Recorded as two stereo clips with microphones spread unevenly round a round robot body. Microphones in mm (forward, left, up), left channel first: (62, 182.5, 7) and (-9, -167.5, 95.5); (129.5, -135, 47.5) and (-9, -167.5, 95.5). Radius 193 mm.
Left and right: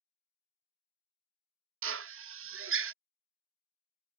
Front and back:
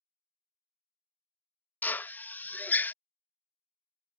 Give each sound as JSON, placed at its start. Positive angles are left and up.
{"t": 1.8, "sound": "a drill", "azimuth_deg": -40}